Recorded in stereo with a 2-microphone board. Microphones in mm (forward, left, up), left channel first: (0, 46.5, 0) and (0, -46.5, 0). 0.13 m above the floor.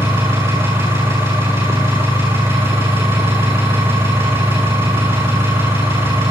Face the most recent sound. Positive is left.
turn(degrees=-25)  # may be behind; listen again after turning